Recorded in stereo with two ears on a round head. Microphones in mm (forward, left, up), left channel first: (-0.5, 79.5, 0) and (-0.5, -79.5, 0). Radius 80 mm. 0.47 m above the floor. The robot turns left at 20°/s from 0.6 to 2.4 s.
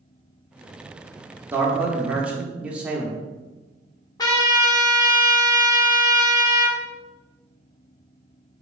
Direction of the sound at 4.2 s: 20° left (ahead or behind).